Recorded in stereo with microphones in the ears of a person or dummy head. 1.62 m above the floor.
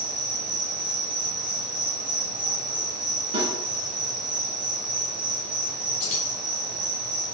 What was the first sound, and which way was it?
An insect, 5° right (ahead or behind).